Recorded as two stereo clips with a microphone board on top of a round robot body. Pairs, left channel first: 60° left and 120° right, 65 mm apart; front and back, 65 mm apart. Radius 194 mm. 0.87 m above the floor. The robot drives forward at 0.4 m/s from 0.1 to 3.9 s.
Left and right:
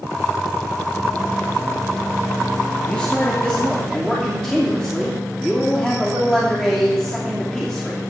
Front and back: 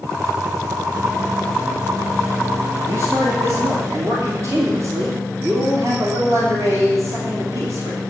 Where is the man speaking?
135° left, 2.5 m; by 8.0 s 140° left, 3 m.